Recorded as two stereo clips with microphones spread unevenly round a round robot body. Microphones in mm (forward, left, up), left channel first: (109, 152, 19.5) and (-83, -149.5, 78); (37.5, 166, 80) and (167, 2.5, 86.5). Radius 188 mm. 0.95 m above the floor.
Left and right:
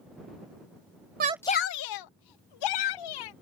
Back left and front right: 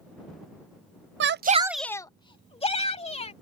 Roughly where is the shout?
Ahead right.